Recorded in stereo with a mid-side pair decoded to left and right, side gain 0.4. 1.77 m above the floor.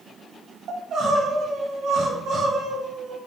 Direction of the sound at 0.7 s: 65° right.